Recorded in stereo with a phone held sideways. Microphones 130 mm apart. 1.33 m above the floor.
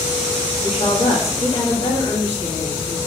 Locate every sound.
0.6 s a woman speaking: 50° left (ahead or behind), 3 m